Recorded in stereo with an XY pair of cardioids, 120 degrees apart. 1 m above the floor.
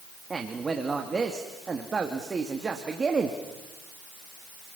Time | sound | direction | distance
0.3 | a man speaking | 25° right | 2.0 m